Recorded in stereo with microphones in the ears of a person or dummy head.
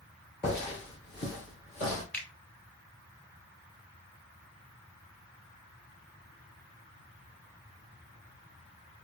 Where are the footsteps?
20° left (ahead or behind), 1.4 m; by 2.0 s 35° left (ahead or behind), 1.7 m.